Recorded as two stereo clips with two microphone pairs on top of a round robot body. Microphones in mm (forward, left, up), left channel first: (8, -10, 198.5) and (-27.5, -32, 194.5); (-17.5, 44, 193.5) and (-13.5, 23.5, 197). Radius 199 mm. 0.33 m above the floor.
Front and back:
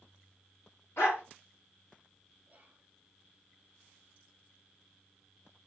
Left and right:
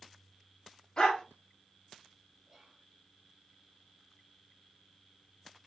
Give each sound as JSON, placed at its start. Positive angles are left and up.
{"t": 1.0, "sound": "a dog barking", "azimuth_deg": 55, "distance_m": 2.0}
{"t": 2.5, "sound": "whispering", "azimuth_deg": -150, "distance_m": 1.5}